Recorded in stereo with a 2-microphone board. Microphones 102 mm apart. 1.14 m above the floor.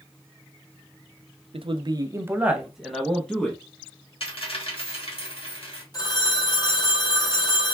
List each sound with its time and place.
1.5 s a man speaking: 65° right (ahead or behind), 0.6 m; by 3.6 s 15° left (ahead or behind), 1.2 m
4.2 s a dropped coin: 65° left (ahead or behind), 1.4 m
5.9 s a phone ringing: 40° left (ahead or behind), 1.2 m